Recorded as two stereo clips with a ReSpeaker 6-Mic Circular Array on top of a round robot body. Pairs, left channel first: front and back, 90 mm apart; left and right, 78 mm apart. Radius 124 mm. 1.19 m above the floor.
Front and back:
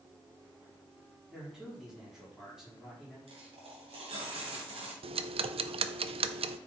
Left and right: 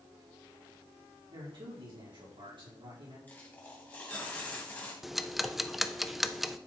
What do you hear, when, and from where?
1.3 s a man speaking: 95° right, 4 m
3.3 s a dropped coin: 160° left, 2 m
5.0 s ticking: straight behind, 0.6 m